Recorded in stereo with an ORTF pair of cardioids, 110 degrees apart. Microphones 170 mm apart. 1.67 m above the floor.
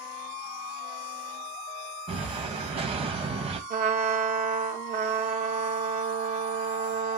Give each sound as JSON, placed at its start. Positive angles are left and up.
{"t": 2.1, "sound": "an explosion", "azimuth_deg": -35, "distance_m": 1.8}
{"t": 3.7, "sound": "a trumpet", "azimuth_deg": -50, "distance_m": 2.5}